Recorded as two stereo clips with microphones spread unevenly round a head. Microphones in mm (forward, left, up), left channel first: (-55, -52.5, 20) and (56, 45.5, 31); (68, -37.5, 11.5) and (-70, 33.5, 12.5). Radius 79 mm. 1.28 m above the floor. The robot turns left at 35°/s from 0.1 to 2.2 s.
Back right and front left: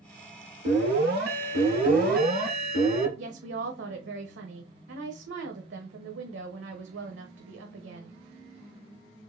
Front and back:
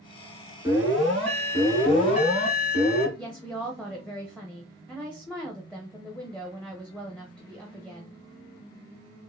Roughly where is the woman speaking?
Ahead left.